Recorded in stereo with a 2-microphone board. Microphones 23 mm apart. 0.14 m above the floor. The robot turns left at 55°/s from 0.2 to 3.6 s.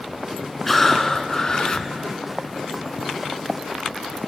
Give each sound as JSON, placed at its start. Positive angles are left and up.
{"t": 0.7, "sound": "breathing", "azimuth_deg": 170, "distance_m": 0.5}